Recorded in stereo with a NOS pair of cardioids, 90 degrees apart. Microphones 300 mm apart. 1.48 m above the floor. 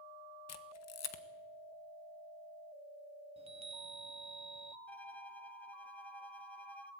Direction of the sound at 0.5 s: 60° left.